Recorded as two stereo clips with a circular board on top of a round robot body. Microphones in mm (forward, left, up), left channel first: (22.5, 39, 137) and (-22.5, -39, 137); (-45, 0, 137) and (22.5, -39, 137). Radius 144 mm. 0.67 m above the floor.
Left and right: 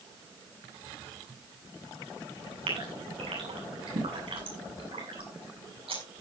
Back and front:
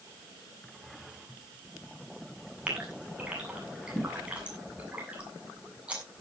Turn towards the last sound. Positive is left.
turn(degrees=-105)